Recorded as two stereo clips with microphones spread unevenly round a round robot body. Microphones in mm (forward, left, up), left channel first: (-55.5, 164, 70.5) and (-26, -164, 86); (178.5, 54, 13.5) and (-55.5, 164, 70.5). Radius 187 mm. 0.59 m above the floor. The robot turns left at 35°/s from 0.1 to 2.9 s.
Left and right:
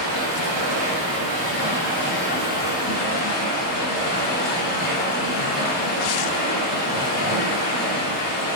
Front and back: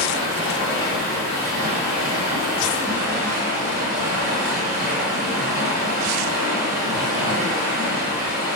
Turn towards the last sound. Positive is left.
turn(degrees=160)